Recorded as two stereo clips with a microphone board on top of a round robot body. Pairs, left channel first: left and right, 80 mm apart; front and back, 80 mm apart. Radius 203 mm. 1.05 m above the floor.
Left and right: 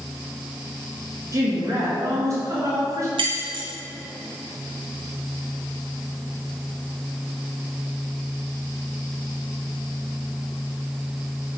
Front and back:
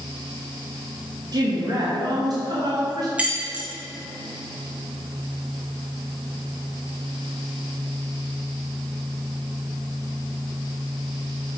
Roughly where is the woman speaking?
Behind right.